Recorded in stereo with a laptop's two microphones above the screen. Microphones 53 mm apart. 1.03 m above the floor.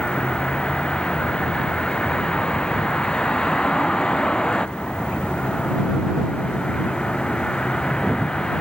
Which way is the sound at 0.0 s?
15° left (ahead or behind).